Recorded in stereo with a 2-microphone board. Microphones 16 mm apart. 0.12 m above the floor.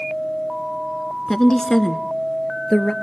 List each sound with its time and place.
1.3 s a woman speaking: 25° left (ahead or behind), 1.1 m; by 2.9 s 40° left (ahead or behind), 1.7 m